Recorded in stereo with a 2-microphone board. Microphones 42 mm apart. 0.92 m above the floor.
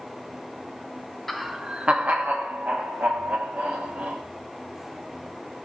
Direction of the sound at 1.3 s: Centre (ahead or behind).